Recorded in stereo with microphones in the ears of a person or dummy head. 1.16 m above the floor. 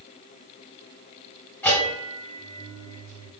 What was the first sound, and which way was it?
A bell, 5° left (ahead or behind).